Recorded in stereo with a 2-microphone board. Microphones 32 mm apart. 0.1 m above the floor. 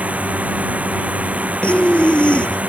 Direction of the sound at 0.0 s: 45° right (ahead or behind).